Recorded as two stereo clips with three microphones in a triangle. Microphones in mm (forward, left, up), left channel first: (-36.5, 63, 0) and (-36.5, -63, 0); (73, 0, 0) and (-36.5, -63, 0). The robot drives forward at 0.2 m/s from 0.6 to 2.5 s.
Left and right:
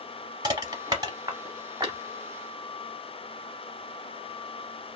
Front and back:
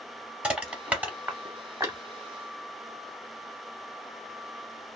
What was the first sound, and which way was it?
Crushing, 75° right.